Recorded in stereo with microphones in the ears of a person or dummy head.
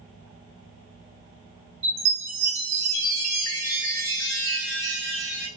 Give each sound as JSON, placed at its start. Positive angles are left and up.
{"t": 1.8, "sound": "a chime", "side_deg": -50, "distance_m": 2.5}